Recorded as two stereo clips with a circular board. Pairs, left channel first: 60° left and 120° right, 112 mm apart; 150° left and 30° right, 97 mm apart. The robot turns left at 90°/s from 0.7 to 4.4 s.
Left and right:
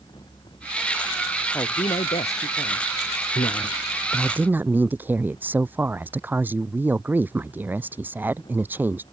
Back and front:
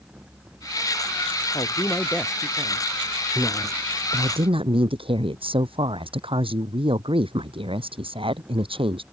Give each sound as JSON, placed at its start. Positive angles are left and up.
{"t": 1.5, "sound": "a woman speaking", "azimuth_deg": 125}
{"t": 3.4, "sound": "a woman speaking", "azimuth_deg": 45}